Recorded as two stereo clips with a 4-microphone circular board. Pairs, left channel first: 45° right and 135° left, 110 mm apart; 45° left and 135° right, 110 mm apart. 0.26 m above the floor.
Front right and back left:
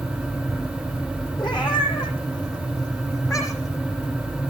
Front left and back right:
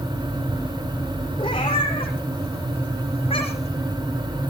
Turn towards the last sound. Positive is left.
turn(degrees=15)